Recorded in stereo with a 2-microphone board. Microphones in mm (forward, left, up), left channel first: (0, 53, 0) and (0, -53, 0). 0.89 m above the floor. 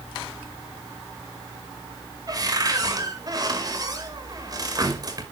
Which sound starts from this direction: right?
A cupboard door, at 2.3 s.